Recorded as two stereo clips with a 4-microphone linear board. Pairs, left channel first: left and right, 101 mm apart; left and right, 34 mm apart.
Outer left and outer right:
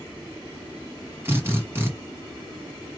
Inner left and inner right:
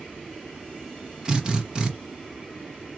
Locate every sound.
1.2 s a drill: 20° right (ahead or behind), 1.4 m